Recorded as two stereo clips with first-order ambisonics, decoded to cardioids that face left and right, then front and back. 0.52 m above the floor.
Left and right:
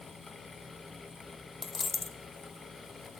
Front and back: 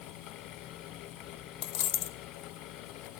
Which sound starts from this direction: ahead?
A dropped coin, at 1.6 s.